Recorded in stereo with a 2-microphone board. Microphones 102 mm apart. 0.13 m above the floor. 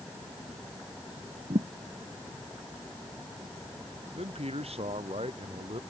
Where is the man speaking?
85° right.